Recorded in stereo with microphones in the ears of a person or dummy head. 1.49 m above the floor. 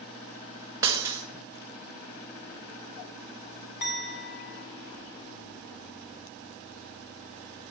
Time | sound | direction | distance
0.8 | breaking glass | 10° right (ahead or behind) | 3 m
3.8 | a clink | 55° left (ahead or behind) | 3 m